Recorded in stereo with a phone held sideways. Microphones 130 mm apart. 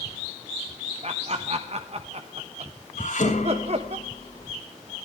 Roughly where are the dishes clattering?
Left.